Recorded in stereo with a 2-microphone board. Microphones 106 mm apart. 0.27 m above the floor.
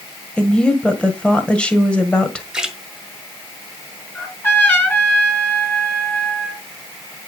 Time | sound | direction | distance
0.4 | a woman speaking | 10° left (ahead or behind) | 1.5 m
2.5 | a splash | 5° right (ahead or behind) | 1.6 m
4.2 | a trumpet | 20° left (ahead or behind) | 2.5 m